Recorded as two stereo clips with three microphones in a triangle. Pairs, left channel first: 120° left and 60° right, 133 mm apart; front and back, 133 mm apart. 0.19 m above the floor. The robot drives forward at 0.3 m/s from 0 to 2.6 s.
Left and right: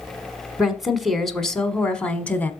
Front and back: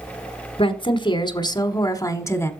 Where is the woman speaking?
30° left, 1.4 m; by 2.5 s 55° left, 1.1 m.